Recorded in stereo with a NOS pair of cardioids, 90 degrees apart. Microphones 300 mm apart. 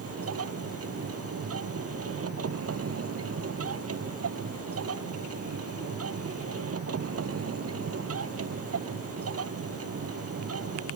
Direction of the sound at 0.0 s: 50° right.